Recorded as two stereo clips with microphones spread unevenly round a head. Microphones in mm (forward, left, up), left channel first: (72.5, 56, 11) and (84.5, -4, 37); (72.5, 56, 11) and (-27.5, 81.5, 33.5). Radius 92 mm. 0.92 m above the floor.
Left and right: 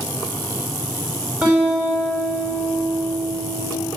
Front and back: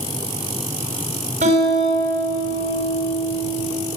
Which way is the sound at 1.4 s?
155° right.